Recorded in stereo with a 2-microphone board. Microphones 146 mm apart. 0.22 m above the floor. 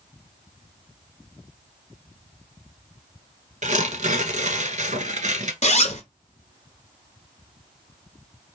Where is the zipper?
50° left (ahead or behind), 0.8 m.